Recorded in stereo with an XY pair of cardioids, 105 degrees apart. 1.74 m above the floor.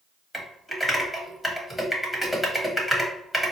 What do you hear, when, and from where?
0.3 s typing on a keyboard: straight ahead, 1.1 m